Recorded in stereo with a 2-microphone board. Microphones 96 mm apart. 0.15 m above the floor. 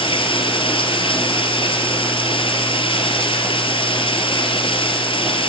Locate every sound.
0.0 s running water: 65° left (ahead or behind), 3 m